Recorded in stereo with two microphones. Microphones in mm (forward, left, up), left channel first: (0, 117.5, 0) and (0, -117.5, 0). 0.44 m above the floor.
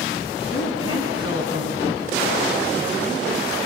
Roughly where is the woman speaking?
Left.